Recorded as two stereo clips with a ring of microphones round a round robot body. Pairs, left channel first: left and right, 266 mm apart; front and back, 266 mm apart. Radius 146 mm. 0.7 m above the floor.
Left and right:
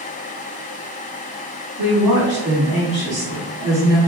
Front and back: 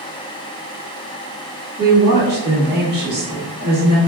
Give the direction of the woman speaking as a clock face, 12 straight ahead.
4 o'clock.